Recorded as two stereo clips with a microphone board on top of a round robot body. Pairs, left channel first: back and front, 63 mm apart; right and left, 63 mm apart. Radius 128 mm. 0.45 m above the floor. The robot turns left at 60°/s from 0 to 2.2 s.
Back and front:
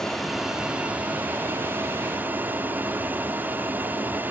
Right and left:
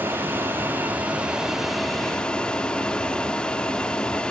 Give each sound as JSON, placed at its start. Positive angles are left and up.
{"t": 0.0, "sound": "an aircraft", "azimuth_deg": 105}